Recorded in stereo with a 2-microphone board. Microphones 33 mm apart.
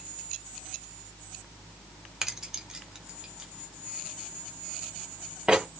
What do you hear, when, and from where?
2.2 s keys jangling: 15° right (ahead or behind), 1.0 m; by 5.7 s 30° right (ahead or behind), 3.5 m